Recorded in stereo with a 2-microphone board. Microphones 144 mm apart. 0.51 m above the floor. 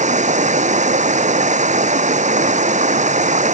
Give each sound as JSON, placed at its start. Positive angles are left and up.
{"t": 0.0, "sound": "running water", "side_deg": -60}